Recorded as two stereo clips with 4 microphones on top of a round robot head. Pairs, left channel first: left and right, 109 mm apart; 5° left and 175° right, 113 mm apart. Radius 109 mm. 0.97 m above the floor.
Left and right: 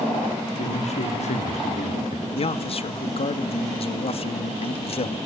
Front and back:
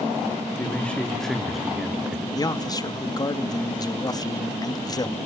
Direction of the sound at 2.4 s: 60° left.